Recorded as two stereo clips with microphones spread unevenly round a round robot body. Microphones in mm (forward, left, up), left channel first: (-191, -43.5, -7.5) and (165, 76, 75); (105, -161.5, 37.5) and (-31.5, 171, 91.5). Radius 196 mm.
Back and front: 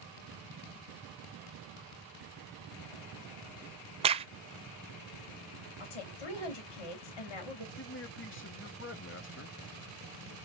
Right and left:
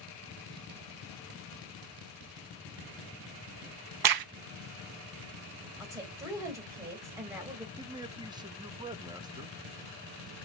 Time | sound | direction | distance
4.0 | a crack | 90° left | 0.7 m
5.8 | a woman speaking | 165° right | 3.5 m
7.8 | a man speaking | 165° right | 1.2 m